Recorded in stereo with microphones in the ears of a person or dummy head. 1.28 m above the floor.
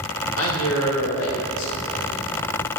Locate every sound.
0.4 s a man speaking: 75° left (ahead or behind), 1.7 m; by 2.3 s 70° left (ahead or behind), 3 m